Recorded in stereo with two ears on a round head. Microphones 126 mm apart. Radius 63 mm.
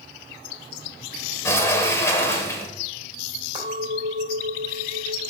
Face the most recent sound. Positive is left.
turn(degrees=-30)  # may be behind; listen again after turning